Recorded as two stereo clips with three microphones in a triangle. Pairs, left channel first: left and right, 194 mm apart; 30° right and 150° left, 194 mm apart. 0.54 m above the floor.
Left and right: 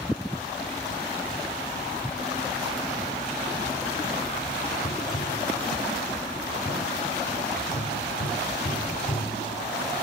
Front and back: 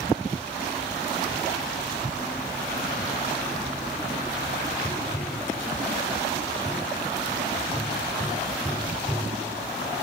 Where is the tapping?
65° left, 2 m.